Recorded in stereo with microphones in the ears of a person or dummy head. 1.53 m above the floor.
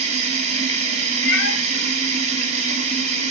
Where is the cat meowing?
70° left (ahead or behind), 2.5 m.